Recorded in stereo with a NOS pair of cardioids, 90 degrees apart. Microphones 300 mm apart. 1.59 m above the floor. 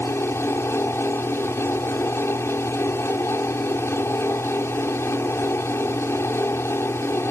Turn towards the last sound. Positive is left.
turn(degrees=10)